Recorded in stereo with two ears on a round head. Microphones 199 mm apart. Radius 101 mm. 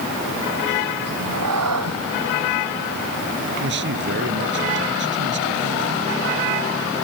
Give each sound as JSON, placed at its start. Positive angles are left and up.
{"t": 1.1, "sound": "a cat meowing", "side_deg": -80}
{"t": 3.6, "sound": "a man speaking", "side_deg": -55}